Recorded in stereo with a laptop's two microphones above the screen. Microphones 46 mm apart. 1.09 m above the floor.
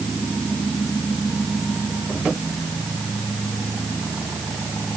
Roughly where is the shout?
I don't hear a shout.